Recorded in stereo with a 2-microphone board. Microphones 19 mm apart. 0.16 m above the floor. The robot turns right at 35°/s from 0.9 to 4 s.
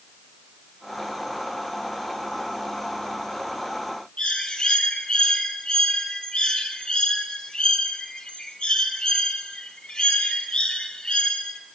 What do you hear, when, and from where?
4.2 s a bird: 50° left (ahead or behind), 3.5 m